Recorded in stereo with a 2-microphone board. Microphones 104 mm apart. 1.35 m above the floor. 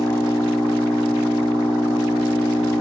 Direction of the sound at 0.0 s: 35° left (ahead or behind).